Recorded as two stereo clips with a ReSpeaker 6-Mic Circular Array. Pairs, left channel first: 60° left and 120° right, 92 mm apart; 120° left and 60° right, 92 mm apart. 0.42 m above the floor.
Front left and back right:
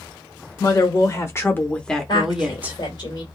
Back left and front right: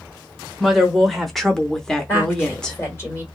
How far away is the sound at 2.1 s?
About 1.8 m.